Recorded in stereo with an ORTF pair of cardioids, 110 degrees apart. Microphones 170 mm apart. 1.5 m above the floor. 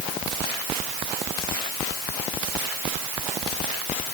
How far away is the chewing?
I don't hear chewing.